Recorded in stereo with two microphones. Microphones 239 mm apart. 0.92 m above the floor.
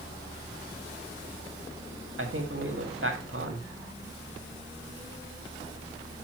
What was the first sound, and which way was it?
A man speaking, 60° right (ahead or behind).